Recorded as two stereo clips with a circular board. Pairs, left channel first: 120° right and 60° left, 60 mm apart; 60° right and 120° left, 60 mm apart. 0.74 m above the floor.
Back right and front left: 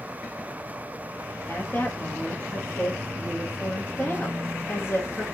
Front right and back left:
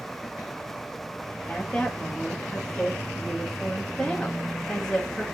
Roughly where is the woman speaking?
Behind right.